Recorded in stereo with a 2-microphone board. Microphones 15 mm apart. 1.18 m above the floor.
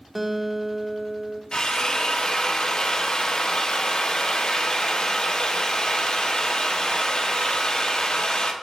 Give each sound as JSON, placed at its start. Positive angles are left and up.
{"t": 0.1, "sound": "a guitar", "side_deg": -15, "distance_m": 0.7}
{"t": 1.5, "sound": "a drill", "side_deg": 55, "distance_m": 0.7}